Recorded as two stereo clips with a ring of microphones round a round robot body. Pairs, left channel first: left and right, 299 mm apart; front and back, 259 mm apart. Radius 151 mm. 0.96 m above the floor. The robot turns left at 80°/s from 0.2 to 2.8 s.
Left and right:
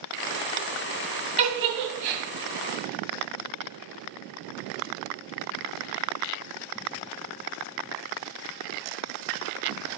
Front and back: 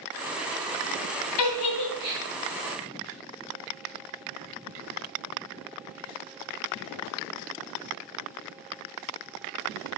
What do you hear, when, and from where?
1.4 s a giggle: 20° right, 2 m; by 2.2 s 90° right, 2 m